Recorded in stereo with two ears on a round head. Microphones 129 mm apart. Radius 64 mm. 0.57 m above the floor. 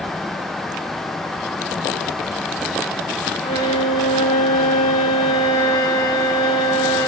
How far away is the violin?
About 2.5 m.